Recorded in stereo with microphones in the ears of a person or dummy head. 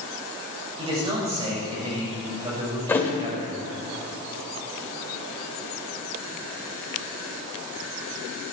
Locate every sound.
0.8 s a man speaking: 25° right (ahead or behind), 5.5 m
2.9 s a thud: 15° left (ahead or behind), 1.8 m